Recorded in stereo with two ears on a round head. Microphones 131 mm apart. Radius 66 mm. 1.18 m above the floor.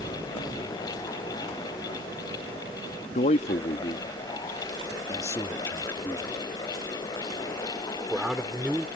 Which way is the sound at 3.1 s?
50° left (ahead or behind).